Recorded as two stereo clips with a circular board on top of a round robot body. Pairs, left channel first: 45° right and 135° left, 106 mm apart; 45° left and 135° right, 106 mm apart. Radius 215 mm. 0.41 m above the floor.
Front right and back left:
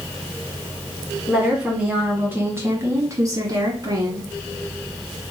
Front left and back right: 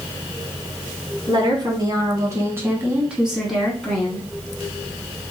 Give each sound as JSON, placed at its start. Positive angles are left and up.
{"t": 1.3, "sound": "a woman speaking", "azimuth_deg": -145, "distance_m": 1.8}